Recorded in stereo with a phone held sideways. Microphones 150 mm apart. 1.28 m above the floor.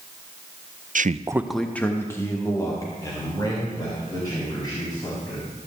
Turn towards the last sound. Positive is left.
turn(degrees=30)  # may be behind; listen again after turning